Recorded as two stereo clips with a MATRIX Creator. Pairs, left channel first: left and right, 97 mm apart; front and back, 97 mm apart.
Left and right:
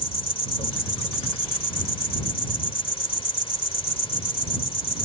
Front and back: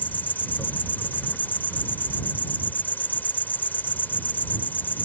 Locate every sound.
0.0 s an insect: 70° left